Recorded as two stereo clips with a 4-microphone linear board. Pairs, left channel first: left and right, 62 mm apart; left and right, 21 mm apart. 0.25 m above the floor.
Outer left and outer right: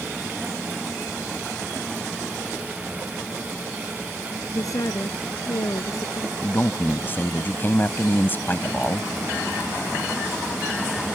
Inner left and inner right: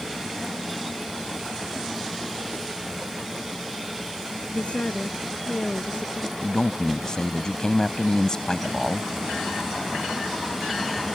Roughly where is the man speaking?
Left.